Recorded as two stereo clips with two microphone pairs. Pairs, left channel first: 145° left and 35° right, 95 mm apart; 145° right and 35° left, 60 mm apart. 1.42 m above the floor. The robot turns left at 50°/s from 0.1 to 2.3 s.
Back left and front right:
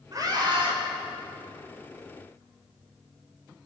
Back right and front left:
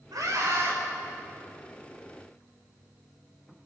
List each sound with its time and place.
0.1 s a scream: 15° left, 5.5 m; by 0.8 s 15° right, 5.5 m